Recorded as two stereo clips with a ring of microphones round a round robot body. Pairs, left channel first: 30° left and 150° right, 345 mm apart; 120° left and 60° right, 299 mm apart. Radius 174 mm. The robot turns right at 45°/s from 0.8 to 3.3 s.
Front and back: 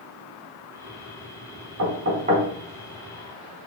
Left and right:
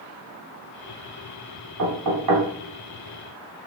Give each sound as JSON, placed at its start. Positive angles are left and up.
{"t": 1.8, "sound": "knocking", "azimuth_deg": -105, "distance_m": 4.0}